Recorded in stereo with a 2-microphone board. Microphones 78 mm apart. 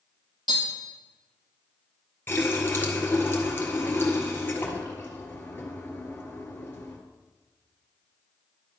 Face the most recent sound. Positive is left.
turn(degrees=25)  # may be behind; listen again after turning